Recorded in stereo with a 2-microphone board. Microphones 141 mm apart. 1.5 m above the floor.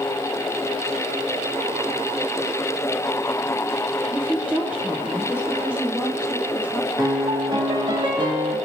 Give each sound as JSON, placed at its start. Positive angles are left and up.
{"t": 4.1, "sound": "a woman speaking", "side_deg": -15, "distance_m": 1.2}
{"t": 7.0, "sound": "a piano", "side_deg": -35, "distance_m": 1.5}